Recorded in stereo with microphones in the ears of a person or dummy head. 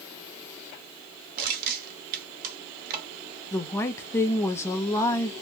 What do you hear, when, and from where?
1.4 s crushing: 65° right (ahead or behind), 1.2 m
3.5 s a woman speaking: 15° left (ahead or behind), 0.6 m